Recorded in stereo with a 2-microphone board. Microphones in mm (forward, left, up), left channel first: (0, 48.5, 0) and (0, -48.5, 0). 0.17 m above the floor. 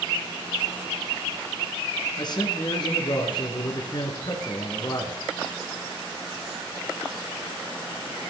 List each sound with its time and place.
2.2 s a man speaking: 45° left (ahead or behind), 2.5 m